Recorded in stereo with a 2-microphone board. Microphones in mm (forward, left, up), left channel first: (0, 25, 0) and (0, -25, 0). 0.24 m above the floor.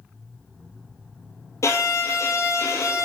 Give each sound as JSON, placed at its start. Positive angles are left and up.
{"t": 1.6, "sound": "a violin", "side_deg": 65, "distance_m": 1.7}